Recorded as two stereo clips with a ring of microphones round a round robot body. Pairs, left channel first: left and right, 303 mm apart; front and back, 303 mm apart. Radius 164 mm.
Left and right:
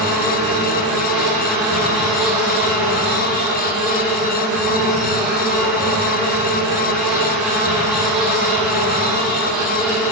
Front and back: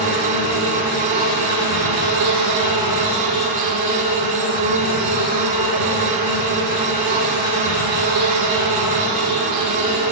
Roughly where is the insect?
Behind.